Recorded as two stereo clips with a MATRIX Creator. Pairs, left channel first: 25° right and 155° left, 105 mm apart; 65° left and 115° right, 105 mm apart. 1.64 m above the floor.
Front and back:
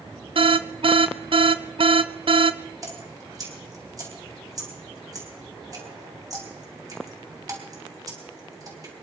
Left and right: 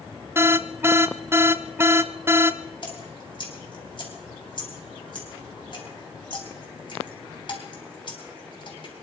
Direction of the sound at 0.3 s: Straight behind.